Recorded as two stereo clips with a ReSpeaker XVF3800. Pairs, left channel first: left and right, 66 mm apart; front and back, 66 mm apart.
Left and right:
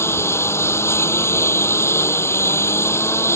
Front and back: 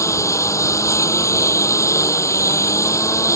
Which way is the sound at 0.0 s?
40° left.